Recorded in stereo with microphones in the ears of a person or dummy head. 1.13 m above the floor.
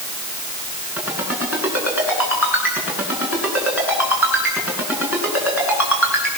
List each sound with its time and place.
1.0 s a ringtone: 5° right (ahead or behind), 9.5 m